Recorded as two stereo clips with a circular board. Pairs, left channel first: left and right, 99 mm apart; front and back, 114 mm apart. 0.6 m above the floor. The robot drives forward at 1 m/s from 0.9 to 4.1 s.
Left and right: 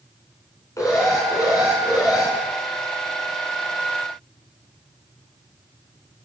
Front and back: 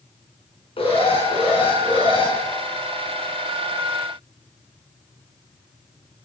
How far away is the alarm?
About 7.5 m.